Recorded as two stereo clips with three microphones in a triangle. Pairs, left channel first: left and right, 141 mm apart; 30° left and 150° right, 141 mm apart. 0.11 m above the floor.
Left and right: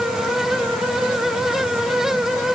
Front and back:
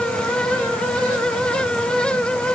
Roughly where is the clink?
No clink in this recording.